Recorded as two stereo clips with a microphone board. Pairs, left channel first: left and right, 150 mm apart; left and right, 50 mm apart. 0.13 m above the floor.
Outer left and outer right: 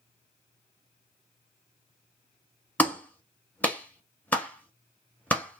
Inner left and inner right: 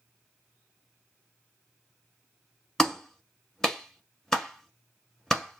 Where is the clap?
10° left (ahead or behind), 0.9 m.